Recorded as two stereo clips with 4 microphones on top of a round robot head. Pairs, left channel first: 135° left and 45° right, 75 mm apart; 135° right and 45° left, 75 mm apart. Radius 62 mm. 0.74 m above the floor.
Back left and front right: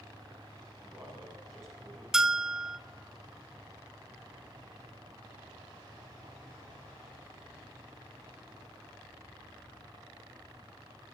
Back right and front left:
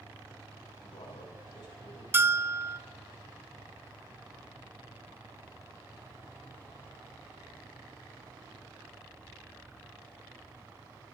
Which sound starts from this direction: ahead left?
A bell, at 2.1 s.